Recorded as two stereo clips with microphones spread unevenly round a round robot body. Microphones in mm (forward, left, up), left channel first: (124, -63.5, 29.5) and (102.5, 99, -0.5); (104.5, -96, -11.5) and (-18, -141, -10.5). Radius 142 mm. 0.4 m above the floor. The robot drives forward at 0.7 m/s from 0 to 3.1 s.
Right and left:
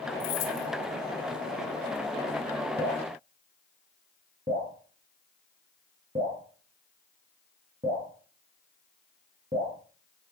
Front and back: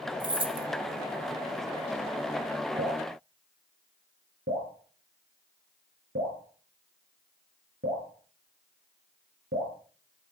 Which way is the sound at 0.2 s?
105° right.